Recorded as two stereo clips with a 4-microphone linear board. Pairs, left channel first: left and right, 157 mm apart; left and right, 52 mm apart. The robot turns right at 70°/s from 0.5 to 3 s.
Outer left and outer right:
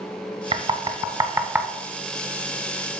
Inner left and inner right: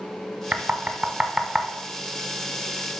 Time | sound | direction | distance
0.5 | knocking | 30° right (ahead or behind) | 0.8 m